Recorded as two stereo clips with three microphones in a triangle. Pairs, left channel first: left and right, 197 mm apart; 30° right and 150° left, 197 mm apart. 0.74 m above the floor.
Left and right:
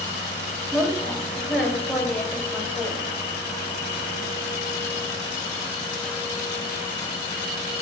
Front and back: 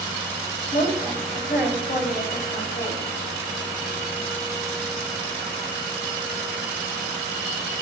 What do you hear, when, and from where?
0.7 s a woman speaking: straight ahead, 4 m